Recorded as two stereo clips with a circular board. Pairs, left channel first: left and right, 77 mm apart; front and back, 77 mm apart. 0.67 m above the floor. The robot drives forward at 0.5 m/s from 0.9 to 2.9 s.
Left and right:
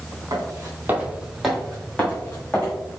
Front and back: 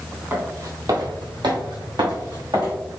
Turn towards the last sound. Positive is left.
turn(degrees=160)